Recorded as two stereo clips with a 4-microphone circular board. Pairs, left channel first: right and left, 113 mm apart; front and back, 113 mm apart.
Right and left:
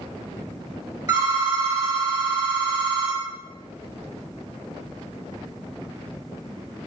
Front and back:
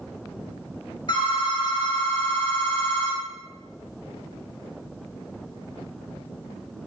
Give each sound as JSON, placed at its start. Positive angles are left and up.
{"t": 1.1, "sound": "a phone ringing", "azimuth_deg": 30, "distance_m": 1.5}